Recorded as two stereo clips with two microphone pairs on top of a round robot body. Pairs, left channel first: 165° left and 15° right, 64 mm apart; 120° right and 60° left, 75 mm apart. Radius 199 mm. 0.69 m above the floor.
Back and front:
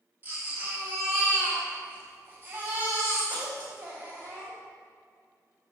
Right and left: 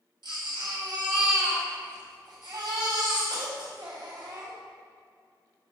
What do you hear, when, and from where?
0.2 s a baby crying: 45° left, 2.5 m